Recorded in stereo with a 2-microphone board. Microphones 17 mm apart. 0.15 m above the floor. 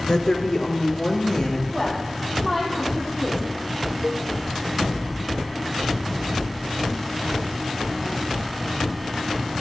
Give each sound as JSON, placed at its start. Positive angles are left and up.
{"t": 0.1, "sound": "a woman speaking", "side_deg": 45, "distance_m": 2.5}
{"t": 1.7, "sound": "a woman speaking", "side_deg": 0, "distance_m": 6.0}
{"t": 4.0, "sound": "a cowbell", "side_deg": -25, "distance_m": 0.7}